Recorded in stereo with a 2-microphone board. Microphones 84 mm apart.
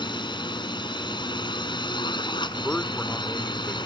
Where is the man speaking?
20° left (ahead or behind).